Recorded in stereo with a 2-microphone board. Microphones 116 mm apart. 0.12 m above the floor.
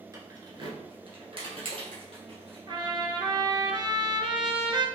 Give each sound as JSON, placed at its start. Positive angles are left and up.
{"t": 0.1, "sound": "keys jangling", "side_deg": -30, "distance_m": 1.0}
{"t": 2.7, "sound": "a trumpet", "side_deg": -40, "distance_m": 0.8}